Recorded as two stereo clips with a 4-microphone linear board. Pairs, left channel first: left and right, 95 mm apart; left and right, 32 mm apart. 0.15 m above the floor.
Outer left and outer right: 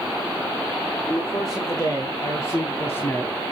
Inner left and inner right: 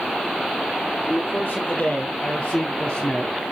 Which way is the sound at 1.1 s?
40° left (ahead or behind).